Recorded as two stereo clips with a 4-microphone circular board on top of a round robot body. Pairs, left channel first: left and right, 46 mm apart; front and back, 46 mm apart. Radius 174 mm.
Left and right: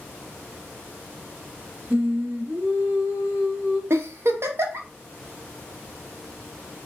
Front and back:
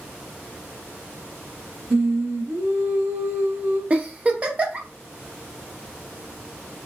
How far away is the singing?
About 1.0 m.